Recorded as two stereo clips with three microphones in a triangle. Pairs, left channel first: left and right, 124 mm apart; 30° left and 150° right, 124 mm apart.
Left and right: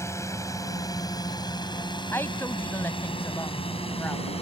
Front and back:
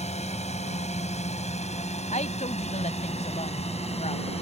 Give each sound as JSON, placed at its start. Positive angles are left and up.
{"t": 0.0, "sound": "a drone", "azimuth_deg": 25}
{"t": 2.1, "sound": "a woman speaking", "azimuth_deg": 20}